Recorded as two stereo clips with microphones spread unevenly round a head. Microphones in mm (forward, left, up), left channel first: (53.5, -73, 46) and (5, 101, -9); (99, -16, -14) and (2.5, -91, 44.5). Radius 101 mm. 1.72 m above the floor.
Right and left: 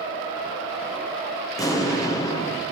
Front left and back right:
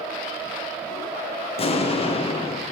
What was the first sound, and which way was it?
An explosion, 15° right.